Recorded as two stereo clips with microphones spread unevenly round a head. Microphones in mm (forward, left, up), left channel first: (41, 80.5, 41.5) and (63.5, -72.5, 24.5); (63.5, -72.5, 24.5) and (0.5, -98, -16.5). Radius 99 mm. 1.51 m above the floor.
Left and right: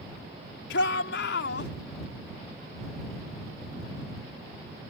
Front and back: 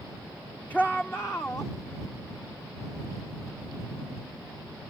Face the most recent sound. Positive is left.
turn(degrees=95)